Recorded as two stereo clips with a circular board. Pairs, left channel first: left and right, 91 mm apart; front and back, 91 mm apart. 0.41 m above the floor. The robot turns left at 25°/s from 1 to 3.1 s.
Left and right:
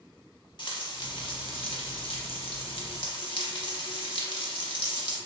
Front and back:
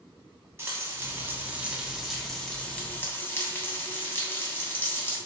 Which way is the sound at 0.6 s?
120° left.